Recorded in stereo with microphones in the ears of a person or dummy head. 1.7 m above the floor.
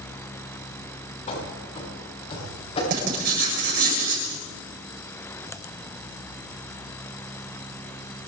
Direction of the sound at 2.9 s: 55° right (ahead or behind).